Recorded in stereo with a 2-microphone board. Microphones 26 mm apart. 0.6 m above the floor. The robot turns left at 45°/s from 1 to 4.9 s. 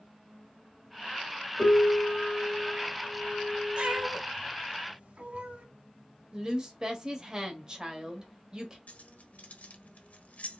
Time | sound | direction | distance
1.6 | a piano | 40° left | 1.3 m
3.8 | a cat meowing | 45° right (ahead or behind) | 0.9 m
6.3 | a woman speaking | 20° right (ahead or behind) | 1.1 m
8.9 | keys jangling | 75° left (ahead or behind) | 0.8 m